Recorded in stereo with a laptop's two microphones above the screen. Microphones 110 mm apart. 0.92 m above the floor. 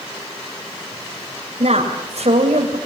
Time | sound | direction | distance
1.6 | a woman speaking | 80° right | 3.5 m